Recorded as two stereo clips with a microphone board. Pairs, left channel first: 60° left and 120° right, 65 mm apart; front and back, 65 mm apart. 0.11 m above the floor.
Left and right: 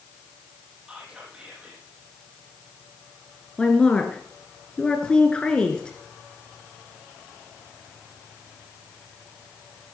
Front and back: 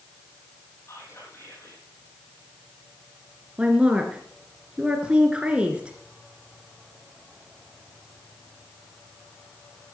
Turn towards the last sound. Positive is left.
turn(degrees=120)